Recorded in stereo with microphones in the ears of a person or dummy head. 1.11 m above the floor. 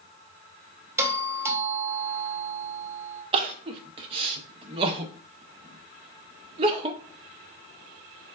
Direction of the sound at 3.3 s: 30° right (ahead or behind).